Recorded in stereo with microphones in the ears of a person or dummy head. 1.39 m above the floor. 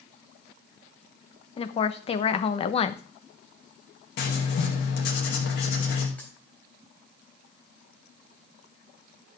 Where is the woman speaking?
30° left (ahead or behind), 1.0 m.